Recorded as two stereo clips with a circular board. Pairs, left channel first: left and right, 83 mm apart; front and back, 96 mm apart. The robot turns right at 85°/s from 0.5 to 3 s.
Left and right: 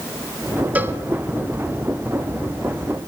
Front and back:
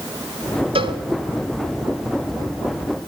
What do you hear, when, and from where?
0.8 s a cowbell: 160° right, 1.1 m; by 1.0 s 140° right, 1.1 m